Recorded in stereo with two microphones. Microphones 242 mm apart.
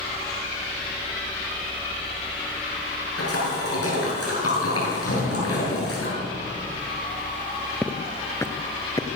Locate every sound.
3.2 s a splash: 70° left (ahead or behind), 9.5 m
5.1 s an explosion: 70° left (ahead or behind), 6 m
7.8 s footsteps: 5° left (ahead or behind), 1.5 m; by 9.1 s 15° left (ahead or behind), 1.6 m